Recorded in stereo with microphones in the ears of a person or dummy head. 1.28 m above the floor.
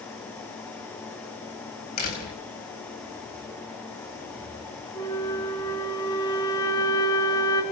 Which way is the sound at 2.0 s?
50° left (ahead or behind).